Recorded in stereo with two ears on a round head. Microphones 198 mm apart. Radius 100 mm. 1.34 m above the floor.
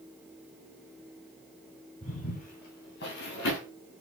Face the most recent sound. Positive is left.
turn(degrees=55)  # may be behind; listen again after turning